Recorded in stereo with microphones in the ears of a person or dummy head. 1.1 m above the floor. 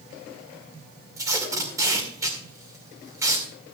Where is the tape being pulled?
15° right (ahead or behind), 2 m.